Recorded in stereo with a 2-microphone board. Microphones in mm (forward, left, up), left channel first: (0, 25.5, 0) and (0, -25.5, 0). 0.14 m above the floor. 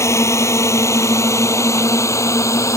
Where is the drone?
65° left (ahead or behind); by 2.8 s 70° left (ahead or behind).